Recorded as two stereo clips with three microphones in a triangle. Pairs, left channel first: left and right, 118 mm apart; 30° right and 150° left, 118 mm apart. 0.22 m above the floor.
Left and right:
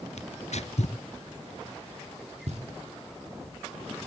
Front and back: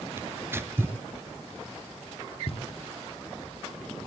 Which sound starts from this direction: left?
Tearing paper, at 0.2 s.